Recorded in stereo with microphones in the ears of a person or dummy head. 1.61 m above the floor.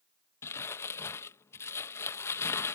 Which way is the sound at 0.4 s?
15° left (ahead or behind).